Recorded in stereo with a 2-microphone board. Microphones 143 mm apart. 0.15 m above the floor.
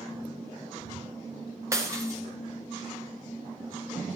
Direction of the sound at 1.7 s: 20° right (ahead or behind).